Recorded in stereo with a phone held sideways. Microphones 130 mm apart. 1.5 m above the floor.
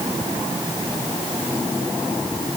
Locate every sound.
Only background noise.